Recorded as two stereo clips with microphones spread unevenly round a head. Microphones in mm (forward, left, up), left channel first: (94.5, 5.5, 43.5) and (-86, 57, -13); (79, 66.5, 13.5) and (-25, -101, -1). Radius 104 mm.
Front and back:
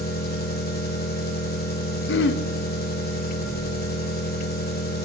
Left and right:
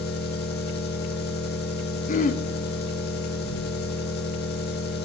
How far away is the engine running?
About 1.9 m.